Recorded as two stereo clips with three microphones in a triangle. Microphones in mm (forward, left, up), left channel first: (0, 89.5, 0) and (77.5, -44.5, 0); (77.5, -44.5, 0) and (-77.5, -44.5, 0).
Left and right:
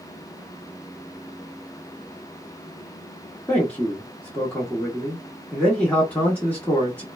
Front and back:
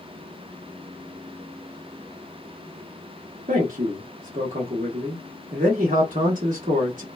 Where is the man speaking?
160° right, 1.0 m.